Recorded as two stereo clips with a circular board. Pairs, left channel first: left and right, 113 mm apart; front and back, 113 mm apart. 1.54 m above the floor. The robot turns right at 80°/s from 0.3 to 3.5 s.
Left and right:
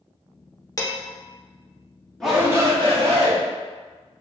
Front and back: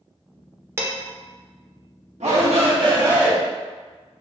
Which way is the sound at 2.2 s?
175° left.